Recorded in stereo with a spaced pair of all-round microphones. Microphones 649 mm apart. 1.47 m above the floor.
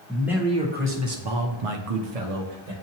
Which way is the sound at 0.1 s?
Centre (ahead or behind).